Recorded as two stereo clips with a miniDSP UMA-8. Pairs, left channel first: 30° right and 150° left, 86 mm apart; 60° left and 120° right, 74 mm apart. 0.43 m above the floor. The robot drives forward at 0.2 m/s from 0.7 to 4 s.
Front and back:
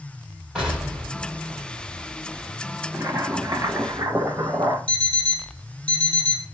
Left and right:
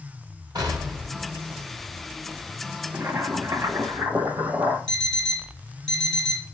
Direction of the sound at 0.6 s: 130° right.